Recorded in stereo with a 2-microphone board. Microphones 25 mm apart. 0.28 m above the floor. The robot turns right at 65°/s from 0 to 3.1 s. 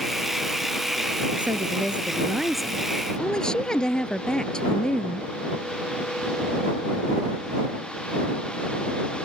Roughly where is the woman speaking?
Right.